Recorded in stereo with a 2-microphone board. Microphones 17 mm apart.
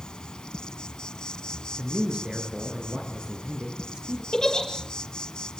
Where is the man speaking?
75° right (ahead or behind), 7 m.